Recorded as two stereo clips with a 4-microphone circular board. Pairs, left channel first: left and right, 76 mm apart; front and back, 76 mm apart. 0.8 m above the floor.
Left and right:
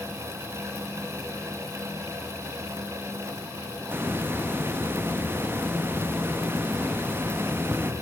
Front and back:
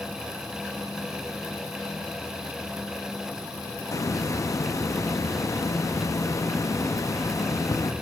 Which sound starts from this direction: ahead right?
A hiss, at 3.9 s.